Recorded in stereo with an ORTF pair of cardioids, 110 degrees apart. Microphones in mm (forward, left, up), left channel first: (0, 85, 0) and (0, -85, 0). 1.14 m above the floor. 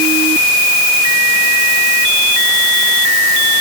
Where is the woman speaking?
No woman speaking in this recording.